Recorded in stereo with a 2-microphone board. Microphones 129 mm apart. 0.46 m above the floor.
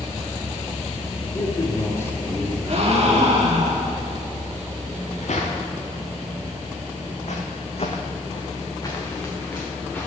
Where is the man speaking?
30° left (ahead or behind), 1.2 m; by 3.4 s 5° right (ahead or behind), 1.6 m.